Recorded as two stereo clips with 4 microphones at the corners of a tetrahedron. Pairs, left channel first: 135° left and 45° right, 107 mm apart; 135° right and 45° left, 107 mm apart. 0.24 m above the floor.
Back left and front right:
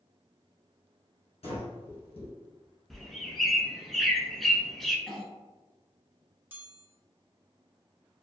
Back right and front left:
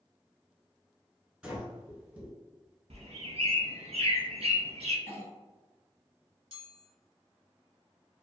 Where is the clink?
55° left, 1.9 m.